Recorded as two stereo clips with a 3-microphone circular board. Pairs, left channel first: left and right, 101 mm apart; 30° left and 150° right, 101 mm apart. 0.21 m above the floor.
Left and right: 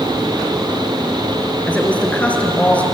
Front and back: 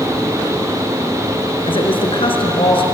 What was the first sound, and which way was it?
A woman speaking, 15° left.